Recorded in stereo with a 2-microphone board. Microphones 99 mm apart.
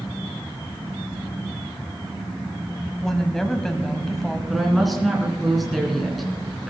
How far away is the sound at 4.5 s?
About 2.5 m.